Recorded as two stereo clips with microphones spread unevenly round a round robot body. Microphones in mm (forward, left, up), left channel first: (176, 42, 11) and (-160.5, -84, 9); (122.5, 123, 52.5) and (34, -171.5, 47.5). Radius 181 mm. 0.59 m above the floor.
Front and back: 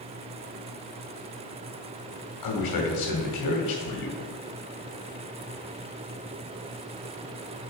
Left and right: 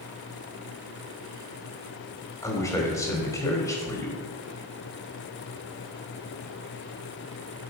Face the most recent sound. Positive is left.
turn(degrees=-5)